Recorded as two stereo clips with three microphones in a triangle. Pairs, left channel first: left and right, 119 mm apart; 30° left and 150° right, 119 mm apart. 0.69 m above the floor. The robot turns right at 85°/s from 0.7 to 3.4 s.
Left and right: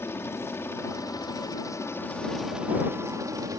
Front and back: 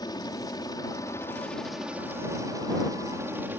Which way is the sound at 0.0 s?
35° left.